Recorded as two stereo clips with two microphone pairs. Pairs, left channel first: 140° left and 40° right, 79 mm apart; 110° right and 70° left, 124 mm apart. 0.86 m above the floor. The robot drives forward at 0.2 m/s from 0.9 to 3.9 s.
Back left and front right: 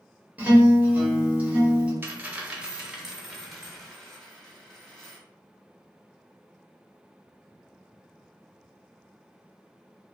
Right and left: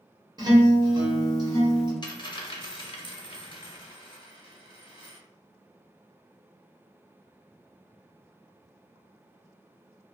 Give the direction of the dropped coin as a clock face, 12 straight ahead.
3 o'clock.